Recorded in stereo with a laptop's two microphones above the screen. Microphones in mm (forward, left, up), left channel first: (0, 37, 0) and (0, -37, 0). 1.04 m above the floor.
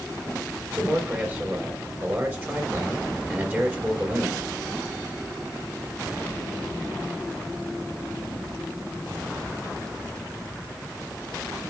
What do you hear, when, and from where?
0.7 s a man speaking: 25° right (ahead or behind), 4.5 m